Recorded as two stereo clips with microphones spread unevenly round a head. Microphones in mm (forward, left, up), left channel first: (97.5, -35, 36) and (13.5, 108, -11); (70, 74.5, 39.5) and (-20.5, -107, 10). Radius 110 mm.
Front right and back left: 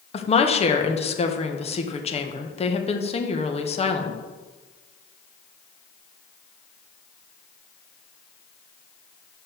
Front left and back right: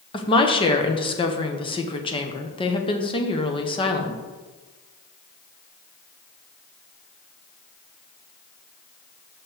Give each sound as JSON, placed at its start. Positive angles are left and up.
{"t": 0.1, "sound": "a woman speaking", "azimuth_deg": -5, "distance_m": 1.3}